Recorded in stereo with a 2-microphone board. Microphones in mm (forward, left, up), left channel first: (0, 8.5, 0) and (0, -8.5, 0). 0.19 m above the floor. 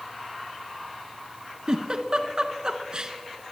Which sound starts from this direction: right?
A giggle, at 1.7 s.